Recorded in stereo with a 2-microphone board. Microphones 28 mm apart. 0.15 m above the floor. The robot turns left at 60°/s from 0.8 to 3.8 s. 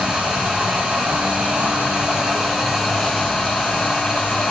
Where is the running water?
65° right, 9 m; by 4.5 s 115° left, 9 m.